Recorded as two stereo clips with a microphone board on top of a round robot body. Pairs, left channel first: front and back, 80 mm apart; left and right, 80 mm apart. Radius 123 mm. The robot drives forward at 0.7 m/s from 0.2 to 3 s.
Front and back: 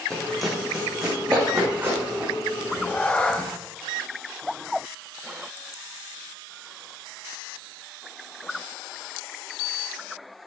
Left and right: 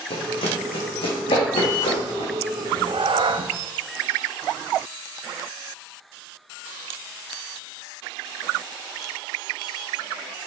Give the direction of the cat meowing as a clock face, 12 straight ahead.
2 o'clock.